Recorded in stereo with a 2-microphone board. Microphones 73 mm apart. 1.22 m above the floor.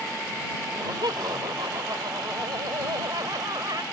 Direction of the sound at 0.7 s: 75° right (ahead or behind).